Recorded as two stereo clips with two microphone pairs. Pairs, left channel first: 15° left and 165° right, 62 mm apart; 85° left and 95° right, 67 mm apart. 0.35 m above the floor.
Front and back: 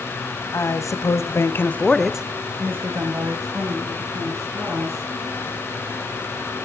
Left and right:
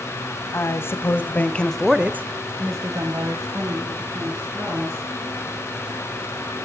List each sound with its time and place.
0.5 s a woman speaking: 40° left, 2 m; by 5.1 s 130° right, 4 m